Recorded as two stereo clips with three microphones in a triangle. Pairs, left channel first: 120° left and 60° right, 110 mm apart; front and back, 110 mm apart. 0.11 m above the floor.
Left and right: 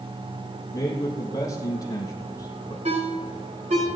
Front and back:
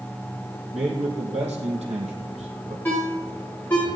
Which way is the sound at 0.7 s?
175° left.